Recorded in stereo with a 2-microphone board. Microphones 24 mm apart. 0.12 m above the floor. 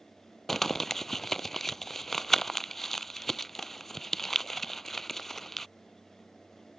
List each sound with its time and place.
0.5 s crumpling: 15° left (ahead or behind)